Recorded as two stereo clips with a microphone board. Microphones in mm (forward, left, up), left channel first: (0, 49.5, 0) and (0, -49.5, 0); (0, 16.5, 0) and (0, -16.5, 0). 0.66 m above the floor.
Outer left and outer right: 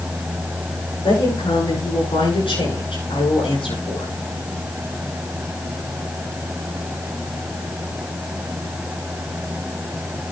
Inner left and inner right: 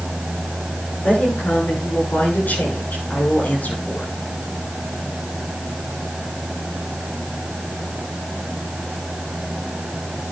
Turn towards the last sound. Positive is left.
turn(degrees=70)  # may be behind; listen again after turning